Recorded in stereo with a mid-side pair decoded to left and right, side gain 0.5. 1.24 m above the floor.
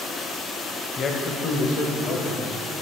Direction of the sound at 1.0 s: 40° left.